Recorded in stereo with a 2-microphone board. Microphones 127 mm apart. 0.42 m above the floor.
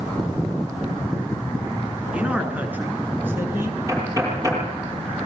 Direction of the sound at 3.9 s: 25° right (ahead or behind).